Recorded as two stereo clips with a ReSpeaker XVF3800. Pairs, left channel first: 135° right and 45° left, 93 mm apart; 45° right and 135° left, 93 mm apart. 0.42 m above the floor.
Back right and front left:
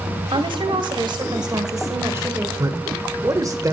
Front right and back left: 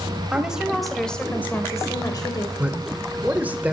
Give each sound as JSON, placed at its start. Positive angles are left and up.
{"t": 0.3, "sound": "a woman speaking", "azimuth_deg": 55, "distance_m": 2.0}
{"t": 2.6, "sound": "a man speaking", "azimuth_deg": 70, "distance_m": 1.4}